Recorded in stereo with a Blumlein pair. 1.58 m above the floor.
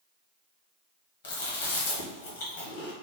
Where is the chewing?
60° left, 1.3 m.